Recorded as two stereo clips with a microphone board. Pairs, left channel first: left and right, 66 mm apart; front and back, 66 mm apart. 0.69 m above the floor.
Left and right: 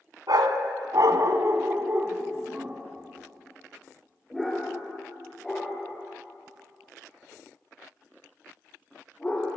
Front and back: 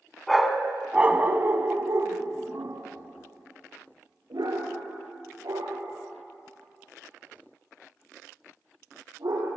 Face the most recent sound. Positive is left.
turn(degrees=165)